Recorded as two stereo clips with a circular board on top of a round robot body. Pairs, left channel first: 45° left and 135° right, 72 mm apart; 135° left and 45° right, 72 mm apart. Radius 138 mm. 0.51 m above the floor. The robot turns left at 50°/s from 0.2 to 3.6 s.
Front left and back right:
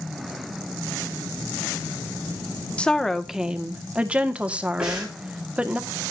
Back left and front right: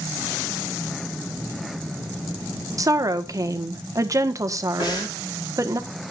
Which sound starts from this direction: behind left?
Breathing, at 4.8 s.